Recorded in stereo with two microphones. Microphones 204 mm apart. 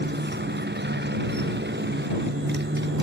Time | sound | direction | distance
0.0 | a motorcycle | 55° right (ahead or behind) | ?